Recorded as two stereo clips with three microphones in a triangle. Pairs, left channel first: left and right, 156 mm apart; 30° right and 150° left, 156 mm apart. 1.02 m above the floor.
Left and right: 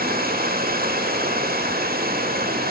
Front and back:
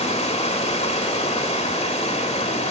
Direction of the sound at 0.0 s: 75° right.